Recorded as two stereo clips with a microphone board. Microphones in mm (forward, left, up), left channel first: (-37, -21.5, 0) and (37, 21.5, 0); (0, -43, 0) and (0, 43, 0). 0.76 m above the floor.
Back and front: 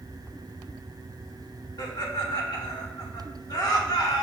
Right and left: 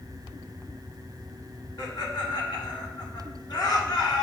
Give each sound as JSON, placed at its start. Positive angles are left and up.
{"t": 1.8, "sound": "laughter", "azimuth_deg": -115, "distance_m": 1.4}